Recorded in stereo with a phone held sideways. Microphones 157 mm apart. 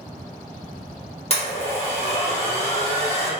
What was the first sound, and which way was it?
A blender, 40° left (ahead or behind).